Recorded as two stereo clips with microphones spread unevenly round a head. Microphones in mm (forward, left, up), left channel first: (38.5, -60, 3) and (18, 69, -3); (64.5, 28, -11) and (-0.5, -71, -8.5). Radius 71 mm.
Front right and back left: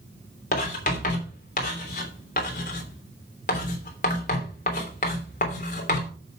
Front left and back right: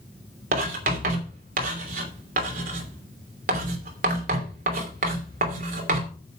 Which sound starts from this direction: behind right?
Writing, at 0.5 s.